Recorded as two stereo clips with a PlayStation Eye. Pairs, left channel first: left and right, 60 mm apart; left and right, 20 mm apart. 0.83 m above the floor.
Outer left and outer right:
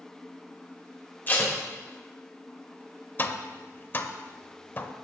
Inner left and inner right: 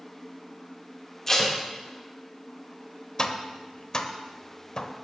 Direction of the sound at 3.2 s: 35° left (ahead or behind).